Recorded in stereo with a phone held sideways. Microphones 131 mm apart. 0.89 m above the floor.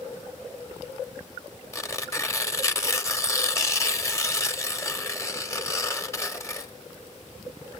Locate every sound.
1.7 s tearing paper: 25° left (ahead or behind), 1.1 m